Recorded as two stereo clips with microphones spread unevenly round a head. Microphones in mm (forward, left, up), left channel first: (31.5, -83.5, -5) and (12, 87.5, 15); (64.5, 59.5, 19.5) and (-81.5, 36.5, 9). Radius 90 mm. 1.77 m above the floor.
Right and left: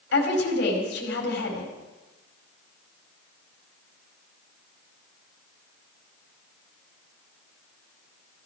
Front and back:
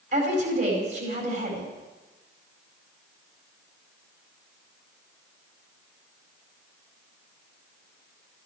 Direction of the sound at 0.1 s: 120° right.